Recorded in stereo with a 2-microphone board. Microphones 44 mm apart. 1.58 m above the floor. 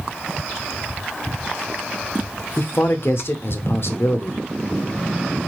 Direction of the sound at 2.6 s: 60° left (ahead or behind).